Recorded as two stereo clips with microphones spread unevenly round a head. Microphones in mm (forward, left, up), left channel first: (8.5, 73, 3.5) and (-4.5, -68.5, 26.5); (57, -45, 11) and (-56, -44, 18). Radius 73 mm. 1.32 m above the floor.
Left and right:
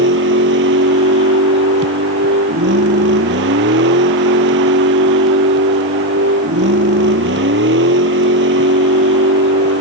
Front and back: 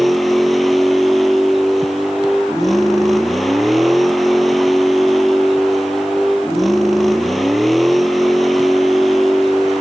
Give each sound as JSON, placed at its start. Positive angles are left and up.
{"t": 0.0, "sound": "a vehicle", "azimuth_deg": -90}